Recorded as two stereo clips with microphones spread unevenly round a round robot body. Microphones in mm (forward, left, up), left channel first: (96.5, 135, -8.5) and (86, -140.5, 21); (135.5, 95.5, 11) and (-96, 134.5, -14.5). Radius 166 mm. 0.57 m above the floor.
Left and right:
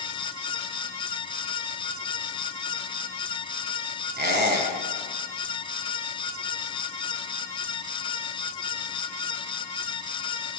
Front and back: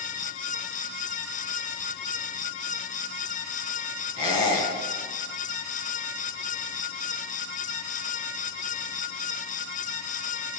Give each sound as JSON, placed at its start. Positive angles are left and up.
{"t": 4.2, "sound": "a squeak", "azimuth_deg": -40, "distance_m": 3.0}